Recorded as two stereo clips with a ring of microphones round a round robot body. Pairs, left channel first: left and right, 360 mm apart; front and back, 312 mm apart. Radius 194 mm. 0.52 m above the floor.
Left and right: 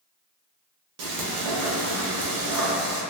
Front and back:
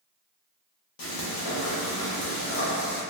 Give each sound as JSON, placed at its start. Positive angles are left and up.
{"t": 1.0, "sound": "frying", "azimuth_deg": -40, "distance_m": 0.5}